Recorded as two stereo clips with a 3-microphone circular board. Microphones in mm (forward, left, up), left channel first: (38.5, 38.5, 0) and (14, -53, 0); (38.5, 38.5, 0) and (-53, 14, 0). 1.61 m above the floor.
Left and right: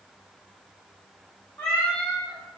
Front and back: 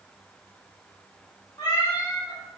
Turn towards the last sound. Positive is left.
turn(degrees=-50)